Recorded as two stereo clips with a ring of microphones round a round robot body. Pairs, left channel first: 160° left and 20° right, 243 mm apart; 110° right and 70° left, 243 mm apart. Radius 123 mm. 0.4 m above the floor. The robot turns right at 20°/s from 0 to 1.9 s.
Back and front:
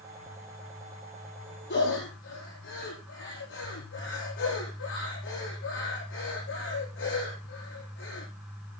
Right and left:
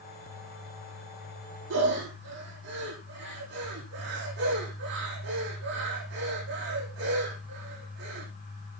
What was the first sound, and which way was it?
Breathing, 110° left.